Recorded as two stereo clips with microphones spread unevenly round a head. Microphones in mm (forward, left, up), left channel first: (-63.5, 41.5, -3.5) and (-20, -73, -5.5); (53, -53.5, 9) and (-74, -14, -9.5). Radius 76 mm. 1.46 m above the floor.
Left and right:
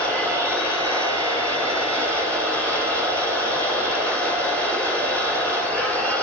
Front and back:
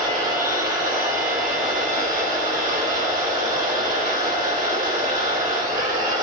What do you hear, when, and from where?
0.0 s a machine running: 175° right, 3 m